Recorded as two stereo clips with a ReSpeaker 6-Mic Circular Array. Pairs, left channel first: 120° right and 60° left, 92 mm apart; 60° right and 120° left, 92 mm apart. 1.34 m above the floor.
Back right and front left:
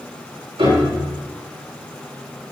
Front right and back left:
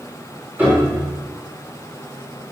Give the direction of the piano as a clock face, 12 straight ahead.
10 o'clock.